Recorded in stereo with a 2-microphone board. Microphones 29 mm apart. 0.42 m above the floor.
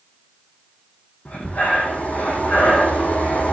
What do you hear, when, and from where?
1.2 s breathing: 60° left (ahead or behind), 4 m